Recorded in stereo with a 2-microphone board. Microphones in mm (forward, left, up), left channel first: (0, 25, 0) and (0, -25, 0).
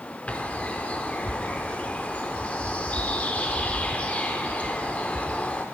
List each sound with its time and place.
0.3 s a bird: 30° left (ahead or behind), 0.7 m